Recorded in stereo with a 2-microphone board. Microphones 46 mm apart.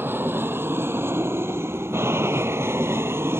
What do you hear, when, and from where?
0.0 s an aircraft: 50° right (ahead or behind); by 3.4 s 60° right (ahead or behind)